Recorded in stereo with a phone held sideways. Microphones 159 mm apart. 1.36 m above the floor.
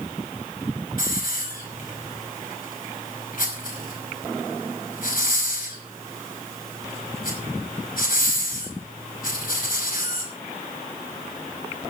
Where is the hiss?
65° left (ahead or behind), 5 m.